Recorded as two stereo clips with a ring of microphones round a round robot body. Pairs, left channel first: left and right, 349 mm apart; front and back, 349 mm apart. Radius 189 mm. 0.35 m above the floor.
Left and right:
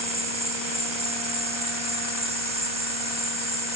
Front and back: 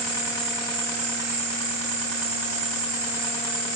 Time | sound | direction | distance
0.0 | an insect | 165° right | 7 m